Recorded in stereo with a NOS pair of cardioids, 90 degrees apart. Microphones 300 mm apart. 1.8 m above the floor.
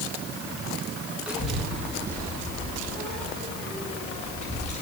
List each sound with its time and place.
1.3 s a child speaking: 5° right, 2 m; by 4.8 s 20° left, 5 m